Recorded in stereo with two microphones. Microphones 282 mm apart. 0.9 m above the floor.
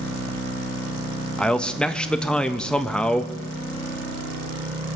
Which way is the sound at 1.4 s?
5° left (ahead or behind).